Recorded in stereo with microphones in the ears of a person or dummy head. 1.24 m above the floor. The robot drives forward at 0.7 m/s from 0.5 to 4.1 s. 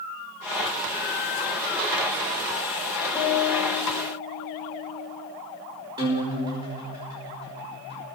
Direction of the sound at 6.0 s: 20° right (ahead or behind).